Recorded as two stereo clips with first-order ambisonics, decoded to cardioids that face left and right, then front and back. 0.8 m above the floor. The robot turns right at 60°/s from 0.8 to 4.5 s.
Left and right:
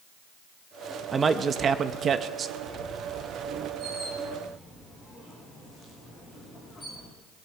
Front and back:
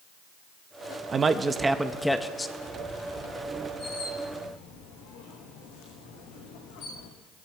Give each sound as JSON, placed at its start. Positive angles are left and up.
{"t": 1.1, "sound": "a man speaking", "azimuth_deg": -145, "distance_m": 0.6}
{"t": 2.6, "sound": "a squeak", "azimuth_deg": -95, "distance_m": 3.5}